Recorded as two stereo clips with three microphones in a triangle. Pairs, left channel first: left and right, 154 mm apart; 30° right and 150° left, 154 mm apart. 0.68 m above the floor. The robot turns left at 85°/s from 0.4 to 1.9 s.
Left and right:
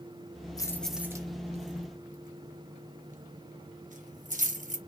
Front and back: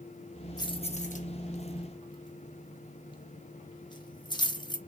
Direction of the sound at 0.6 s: 30° left.